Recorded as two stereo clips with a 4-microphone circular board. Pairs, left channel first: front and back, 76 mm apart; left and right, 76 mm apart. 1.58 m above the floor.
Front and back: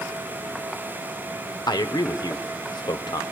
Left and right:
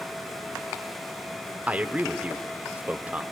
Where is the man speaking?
20° right, 0.9 m.